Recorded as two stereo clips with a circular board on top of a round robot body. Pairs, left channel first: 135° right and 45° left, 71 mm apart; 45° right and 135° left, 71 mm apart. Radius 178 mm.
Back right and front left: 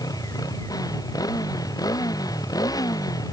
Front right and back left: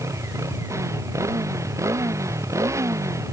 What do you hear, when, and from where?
0.0 s a motorcycle: 175° right